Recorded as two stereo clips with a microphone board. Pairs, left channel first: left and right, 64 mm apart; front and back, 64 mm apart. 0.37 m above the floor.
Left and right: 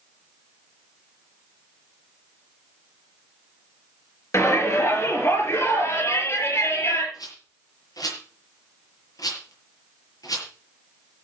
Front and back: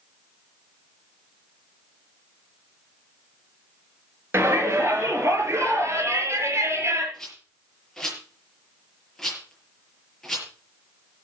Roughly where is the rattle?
Left.